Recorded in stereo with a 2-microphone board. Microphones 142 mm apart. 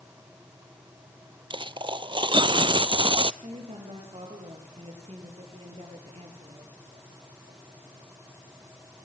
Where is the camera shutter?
No camera shutter in this recording.